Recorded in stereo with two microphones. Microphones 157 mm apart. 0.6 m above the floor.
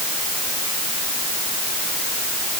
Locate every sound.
Only background noise.